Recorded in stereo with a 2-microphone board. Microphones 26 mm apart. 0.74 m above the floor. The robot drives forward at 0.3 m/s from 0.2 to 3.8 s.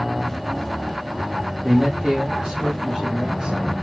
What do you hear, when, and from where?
1.6 s a man speaking: 20° right (ahead or behind), 1.3 m; by 3.6 s 30° right (ahead or behind), 1.0 m